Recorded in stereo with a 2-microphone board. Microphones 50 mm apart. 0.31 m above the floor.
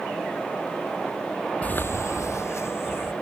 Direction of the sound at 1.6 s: 25° left (ahead or behind).